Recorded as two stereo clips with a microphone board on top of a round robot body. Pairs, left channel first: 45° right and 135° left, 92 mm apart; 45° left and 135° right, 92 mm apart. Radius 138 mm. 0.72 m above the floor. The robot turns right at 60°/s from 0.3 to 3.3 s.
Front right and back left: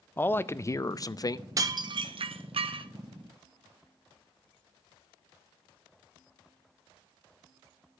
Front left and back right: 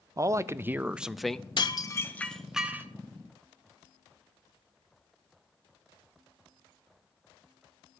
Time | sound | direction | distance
0.2 | a man speaking | 100° right | 0.5 m
1.6 | dishes clattering | 80° left | 0.8 m